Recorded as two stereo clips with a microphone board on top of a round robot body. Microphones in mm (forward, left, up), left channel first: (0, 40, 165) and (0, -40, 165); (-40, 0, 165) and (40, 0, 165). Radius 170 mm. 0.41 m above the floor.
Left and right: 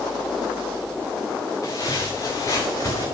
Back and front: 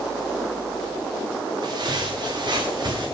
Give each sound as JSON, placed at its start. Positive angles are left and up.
{"t": 1.6, "sound": "footsteps", "azimuth_deg": 40, "distance_m": 5.0}